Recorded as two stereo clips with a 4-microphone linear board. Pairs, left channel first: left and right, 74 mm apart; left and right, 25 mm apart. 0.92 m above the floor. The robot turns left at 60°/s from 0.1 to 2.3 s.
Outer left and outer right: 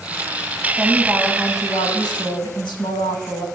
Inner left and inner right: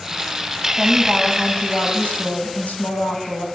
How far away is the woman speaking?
About 6.5 m.